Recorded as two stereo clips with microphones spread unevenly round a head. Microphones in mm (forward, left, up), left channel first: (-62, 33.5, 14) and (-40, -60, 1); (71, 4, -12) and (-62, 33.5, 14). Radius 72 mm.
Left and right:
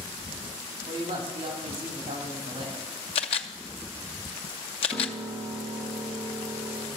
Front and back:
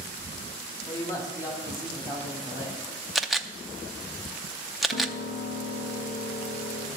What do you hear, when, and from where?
0.9 s a man speaking: 85° right, 2 m; by 2.8 s 80° right, 3.5 m
3.1 s a camera shutter: 85° left, 0.5 m
4.9 s a piano: 15° right, 2 m